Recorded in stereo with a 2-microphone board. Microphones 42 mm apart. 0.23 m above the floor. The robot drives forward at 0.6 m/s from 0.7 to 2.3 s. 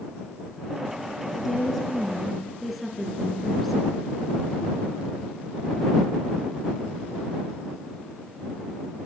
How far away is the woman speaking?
About 3.5 m.